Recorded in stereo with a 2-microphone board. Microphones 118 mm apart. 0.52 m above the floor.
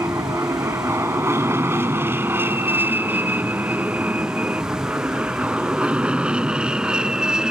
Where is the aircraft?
25° right (ahead or behind); by 7.5 s 5° right (ahead or behind).